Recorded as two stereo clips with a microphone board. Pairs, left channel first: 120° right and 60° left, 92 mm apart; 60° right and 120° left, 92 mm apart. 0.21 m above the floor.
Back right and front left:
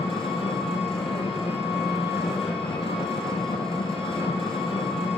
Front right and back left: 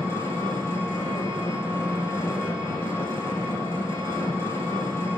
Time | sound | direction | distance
0.0 | an engine running | 120° right | 3.5 m